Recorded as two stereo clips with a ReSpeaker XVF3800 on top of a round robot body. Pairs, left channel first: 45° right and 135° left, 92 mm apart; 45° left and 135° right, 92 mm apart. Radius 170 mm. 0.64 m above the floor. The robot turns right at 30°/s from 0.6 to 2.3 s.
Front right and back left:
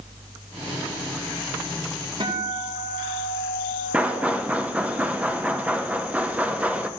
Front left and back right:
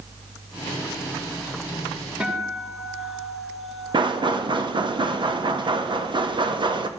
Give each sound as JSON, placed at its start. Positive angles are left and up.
{"t": 2.2, "sound": "a guitar", "azimuth_deg": 145, "distance_m": 2.0}
{"t": 3.9, "sound": "knocking", "azimuth_deg": -150, "distance_m": 0.9}